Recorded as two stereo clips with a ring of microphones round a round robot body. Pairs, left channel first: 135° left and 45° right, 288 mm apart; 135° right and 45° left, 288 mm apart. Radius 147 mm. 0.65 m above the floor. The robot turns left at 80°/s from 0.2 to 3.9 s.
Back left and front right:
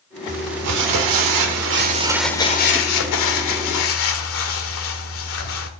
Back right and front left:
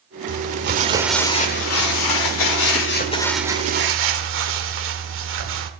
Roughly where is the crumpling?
Ahead.